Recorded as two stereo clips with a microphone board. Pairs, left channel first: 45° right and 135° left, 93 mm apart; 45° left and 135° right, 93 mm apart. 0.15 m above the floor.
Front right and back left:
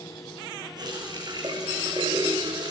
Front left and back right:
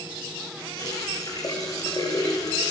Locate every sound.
0.8 s a running tap: 95° left, 8 m